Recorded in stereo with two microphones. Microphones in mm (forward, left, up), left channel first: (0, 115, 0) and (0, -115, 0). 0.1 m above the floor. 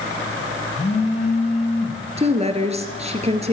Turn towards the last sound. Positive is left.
turn(degrees=-30)  # may be behind; listen again after turning